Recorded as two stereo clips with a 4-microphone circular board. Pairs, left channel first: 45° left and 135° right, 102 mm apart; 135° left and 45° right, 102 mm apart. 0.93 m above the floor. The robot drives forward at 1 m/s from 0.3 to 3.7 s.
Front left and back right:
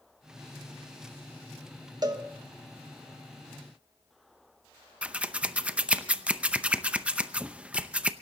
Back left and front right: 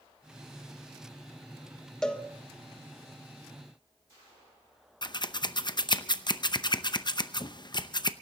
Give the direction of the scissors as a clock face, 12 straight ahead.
7 o'clock.